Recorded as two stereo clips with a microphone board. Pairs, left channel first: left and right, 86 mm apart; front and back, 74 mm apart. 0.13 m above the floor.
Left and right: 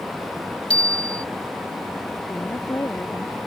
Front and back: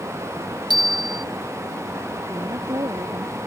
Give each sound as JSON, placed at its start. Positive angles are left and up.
{"t": 0.7, "sound": "a bicycle bell", "azimuth_deg": 170}
{"t": 2.3, "sound": "a woman speaking", "azimuth_deg": 150}